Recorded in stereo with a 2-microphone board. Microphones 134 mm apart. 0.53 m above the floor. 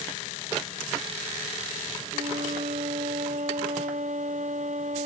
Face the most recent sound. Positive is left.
turn(degrees=-65)  # may be behind; listen again after turning